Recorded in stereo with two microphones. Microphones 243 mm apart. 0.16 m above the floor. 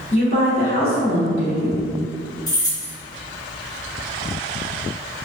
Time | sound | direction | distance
0.1 | a woman speaking | 30° left (ahead or behind) | 1.3 m
2.5 | keys jangling | 15° left (ahead or behind) | 1.3 m